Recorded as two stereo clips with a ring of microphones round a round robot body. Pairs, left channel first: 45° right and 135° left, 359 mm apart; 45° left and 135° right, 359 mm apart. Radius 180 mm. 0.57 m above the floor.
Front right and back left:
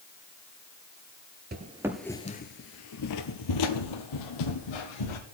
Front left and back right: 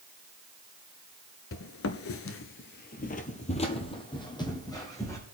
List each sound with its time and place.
1.5 s footsteps: 80° left, 0.6 m; by 5.2 s 35° right, 1.9 m